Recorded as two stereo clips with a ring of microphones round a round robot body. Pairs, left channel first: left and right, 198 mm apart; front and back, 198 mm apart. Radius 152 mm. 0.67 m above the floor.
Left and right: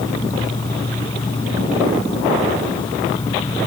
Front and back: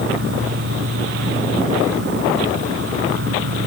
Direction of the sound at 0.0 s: 165° left.